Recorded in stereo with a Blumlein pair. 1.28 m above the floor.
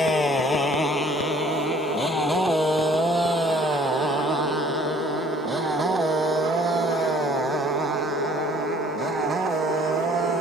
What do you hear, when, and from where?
0.0 s a motorcycle: 15° left; by 10.4 s 15° right